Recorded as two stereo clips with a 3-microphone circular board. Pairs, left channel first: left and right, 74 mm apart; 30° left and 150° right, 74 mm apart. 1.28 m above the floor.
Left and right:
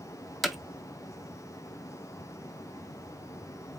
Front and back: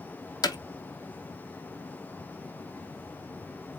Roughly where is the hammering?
Ahead.